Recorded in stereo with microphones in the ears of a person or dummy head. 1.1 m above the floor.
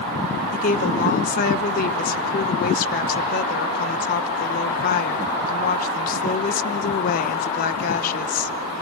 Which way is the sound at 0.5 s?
40° left (ahead or behind).